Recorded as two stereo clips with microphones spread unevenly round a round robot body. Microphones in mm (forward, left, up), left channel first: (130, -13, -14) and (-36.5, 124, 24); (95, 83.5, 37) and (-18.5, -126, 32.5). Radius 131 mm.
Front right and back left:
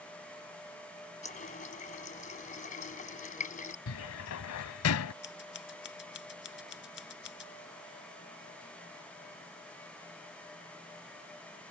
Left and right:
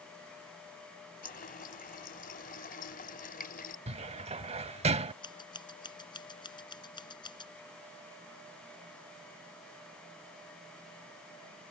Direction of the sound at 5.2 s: 10° right.